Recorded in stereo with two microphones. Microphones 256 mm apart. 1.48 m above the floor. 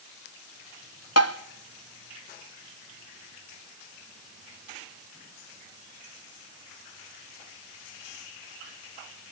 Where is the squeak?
I don't hear a squeak.